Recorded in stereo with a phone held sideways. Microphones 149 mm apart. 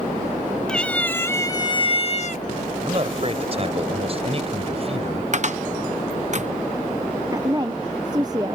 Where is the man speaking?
40° right (ahead or behind).